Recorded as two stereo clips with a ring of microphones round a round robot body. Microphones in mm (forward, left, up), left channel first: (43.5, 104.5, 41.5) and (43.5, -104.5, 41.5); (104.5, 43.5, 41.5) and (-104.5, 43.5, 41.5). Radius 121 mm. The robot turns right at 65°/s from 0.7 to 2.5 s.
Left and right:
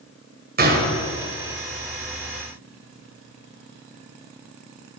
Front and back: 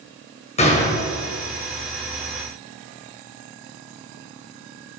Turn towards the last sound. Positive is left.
turn(degrees=60)